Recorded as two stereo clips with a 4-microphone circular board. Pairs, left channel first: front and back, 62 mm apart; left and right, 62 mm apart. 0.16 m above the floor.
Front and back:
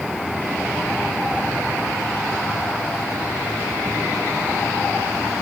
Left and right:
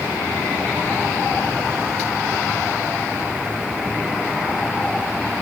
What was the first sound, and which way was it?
Only background noise.